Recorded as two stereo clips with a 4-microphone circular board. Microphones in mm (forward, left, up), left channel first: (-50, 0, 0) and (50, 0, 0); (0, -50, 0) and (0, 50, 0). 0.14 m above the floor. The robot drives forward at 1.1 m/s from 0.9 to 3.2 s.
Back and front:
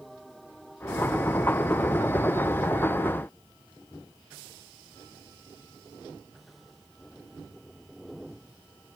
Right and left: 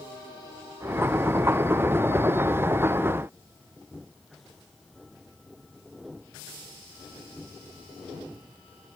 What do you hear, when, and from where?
Only background noise.